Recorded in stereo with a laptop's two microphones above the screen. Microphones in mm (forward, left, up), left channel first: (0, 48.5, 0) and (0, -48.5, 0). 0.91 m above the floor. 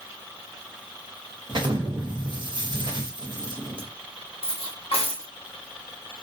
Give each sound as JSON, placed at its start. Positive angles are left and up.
{"t": 1.5, "sound": "an explosion", "side_deg": -50, "distance_m": 0.8}
{"t": 4.4, "sound": "cutlery clinking", "side_deg": 85, "distance_m": 0.9}